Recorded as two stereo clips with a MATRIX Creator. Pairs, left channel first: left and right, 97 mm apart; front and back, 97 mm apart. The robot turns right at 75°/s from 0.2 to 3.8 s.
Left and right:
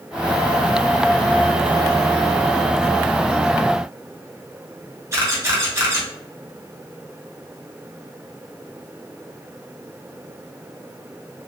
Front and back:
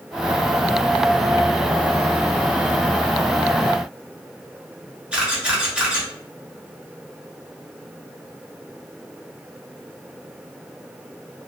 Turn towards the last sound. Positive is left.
turn(degrees=-110)